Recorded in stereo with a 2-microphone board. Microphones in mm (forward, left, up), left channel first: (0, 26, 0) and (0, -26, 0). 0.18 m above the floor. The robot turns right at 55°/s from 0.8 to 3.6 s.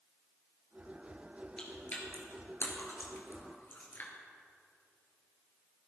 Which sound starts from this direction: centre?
Chewing, at 1.6 s.